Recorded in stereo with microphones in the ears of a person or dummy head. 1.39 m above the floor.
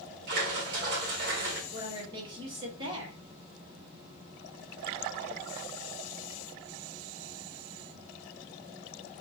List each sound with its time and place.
0.3 s a splash: 50° right (ahead or behind), 1.0 m
1.7 s a woman speaking: 30° right (ahead or behind), 1.7 m